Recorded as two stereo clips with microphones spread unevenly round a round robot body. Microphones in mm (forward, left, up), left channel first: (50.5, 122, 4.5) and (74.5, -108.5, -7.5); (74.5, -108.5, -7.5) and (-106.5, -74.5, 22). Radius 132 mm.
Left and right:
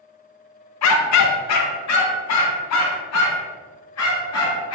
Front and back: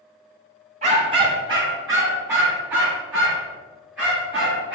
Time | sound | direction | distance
0.8 | a dog barking | 105° left | 0.7 m